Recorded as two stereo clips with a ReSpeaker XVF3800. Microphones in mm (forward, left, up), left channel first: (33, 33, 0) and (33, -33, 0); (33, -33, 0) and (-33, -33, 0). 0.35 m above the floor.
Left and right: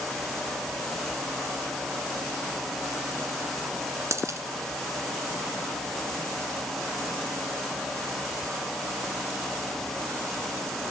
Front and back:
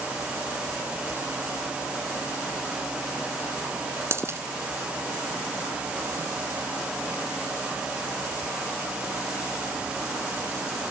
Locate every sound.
4.1 s a dropped coin: 130° right, 1.5 m